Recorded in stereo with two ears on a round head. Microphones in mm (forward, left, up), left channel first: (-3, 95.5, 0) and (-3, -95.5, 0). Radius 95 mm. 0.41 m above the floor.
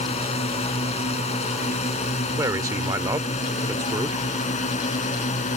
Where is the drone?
30° left (ahead or behind); by 5.6 s 35° left (ahead or behind).